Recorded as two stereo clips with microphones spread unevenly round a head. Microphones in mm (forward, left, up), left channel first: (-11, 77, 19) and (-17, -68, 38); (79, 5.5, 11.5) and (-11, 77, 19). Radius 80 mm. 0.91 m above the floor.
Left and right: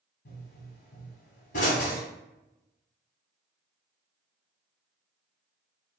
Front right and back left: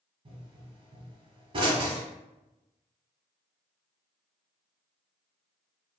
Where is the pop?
120° left, 1.2 m.